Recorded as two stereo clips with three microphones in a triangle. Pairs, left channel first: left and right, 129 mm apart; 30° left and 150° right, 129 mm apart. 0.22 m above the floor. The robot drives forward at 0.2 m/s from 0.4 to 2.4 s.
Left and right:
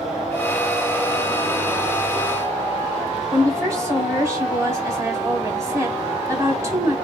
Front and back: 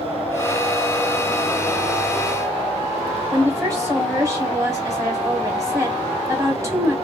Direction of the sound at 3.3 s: 120° right.